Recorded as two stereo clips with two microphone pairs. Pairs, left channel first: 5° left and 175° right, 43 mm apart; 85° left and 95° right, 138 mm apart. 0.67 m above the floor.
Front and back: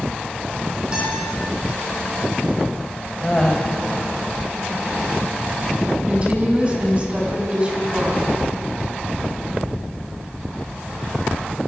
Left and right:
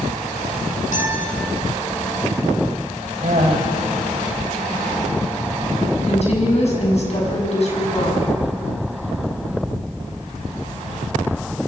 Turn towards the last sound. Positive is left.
turn(degrees=120)